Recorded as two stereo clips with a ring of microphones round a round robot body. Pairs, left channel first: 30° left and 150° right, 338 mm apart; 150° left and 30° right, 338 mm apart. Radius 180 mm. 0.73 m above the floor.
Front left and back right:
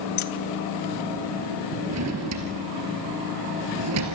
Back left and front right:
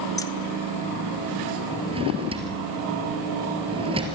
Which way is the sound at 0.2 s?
70° left.